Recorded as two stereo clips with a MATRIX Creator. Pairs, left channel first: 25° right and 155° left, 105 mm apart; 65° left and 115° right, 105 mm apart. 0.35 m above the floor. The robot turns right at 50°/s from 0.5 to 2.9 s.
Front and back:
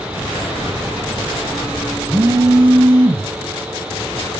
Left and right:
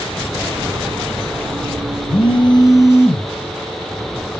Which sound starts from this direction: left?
A phone buzzing, at 2.1 s.